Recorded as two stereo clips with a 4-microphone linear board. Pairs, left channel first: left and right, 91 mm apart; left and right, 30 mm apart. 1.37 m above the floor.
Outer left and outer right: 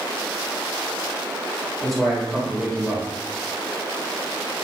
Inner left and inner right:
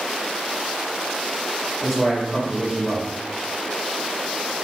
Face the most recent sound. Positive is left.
turn(degrees=5)  # may be behind; listen again after turning